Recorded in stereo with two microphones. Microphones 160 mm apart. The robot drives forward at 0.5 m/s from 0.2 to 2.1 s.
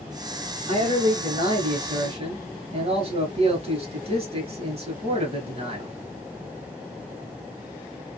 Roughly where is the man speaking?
Right.